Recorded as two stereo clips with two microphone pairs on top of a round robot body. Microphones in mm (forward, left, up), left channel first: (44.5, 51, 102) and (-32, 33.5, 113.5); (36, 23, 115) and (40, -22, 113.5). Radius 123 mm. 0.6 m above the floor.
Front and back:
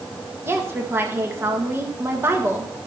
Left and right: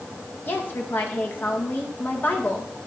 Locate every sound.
0.5 s a woman speaking: 130° left, 1.9 m